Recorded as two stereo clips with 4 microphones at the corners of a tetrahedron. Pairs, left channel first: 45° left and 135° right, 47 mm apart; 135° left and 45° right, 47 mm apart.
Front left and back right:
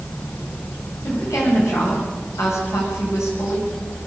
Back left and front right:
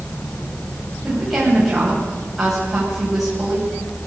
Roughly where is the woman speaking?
Ahead left.